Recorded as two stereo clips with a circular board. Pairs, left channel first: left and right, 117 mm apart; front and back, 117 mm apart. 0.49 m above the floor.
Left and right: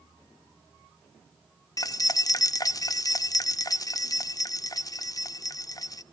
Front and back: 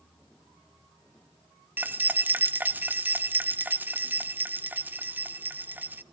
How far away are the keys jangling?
About 0.5 m.